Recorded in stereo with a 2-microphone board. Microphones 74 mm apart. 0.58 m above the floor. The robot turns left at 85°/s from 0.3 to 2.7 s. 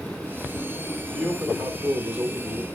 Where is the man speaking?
15° right (ahead or behind), 1.2 m; by 2.6 s 10° right (ahead or behind), 1.2 m.